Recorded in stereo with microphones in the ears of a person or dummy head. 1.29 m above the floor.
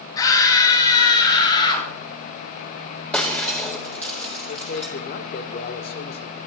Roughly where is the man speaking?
Left.